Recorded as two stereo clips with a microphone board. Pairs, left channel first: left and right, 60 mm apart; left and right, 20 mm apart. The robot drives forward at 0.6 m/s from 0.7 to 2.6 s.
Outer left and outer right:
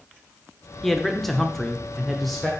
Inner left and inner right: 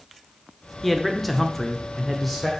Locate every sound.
0.8 s a man speaking: 5° left (ahead or behind), 0.8 m; by 2.5 s centre (ahead or behind), 0.9 m